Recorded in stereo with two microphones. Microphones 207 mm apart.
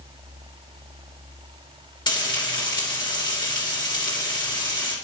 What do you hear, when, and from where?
2.1 s frying: 20° left (ahead or behind), 2.5 m